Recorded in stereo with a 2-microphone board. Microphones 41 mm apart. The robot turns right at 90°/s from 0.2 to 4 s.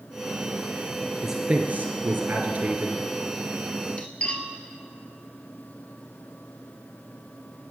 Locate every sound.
1.2 s a man speaking: 175° right, 1.8 m; by 3.0 s 10° right, 1.8 m
4.0 s cutlery clinking: 30° left (ahead or behind), 1.6 m